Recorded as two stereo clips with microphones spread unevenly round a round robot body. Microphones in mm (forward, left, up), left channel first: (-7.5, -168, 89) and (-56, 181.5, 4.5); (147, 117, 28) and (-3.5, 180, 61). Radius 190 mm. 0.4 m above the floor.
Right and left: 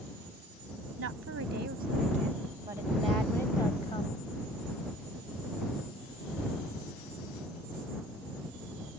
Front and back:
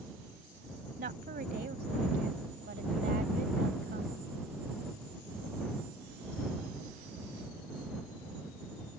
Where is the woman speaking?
140° left; by 4.2 s 155° right.